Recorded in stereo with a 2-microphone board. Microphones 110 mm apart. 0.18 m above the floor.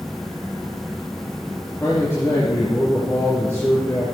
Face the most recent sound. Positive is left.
turn(degrees=20)  # may be behind; listen again after turning